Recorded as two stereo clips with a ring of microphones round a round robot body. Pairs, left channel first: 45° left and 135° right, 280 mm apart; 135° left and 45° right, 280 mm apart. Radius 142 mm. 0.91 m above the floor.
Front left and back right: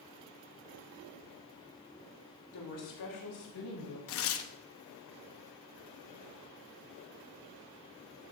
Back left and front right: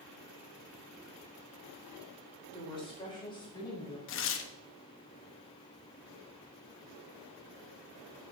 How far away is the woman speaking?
About 3.5 m.